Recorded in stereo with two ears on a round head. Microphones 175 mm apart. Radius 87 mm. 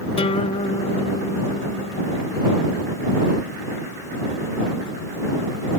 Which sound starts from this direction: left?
A guitar, at 0.2 s.